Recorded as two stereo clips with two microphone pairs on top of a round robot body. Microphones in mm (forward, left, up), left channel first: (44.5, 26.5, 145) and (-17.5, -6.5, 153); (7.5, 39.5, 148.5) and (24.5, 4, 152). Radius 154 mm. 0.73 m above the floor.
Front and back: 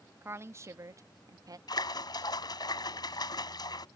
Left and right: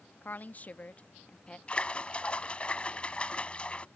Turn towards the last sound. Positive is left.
turn(degrees=50)